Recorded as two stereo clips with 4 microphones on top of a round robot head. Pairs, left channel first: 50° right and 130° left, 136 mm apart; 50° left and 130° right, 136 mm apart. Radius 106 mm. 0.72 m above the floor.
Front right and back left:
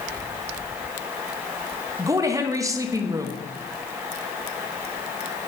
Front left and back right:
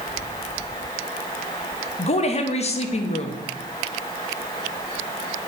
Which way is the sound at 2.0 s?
70° left.